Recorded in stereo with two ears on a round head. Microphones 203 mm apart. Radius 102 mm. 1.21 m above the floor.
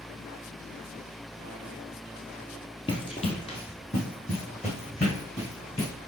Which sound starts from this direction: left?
Running footsteps, at 2.9 s.